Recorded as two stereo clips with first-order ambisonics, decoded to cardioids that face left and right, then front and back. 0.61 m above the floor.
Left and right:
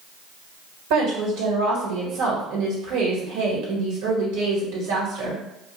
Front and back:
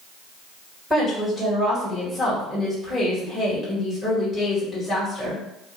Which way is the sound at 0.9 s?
85° right.